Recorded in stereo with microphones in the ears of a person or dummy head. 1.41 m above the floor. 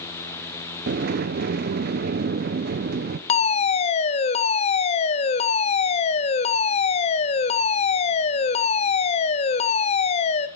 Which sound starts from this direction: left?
A fire alarm, at 3.3 s.